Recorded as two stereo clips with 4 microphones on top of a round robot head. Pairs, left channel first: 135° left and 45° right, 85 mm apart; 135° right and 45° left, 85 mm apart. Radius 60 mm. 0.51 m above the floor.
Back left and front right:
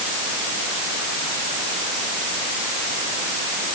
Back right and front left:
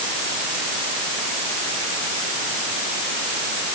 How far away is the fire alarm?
No fire alarm in this recording.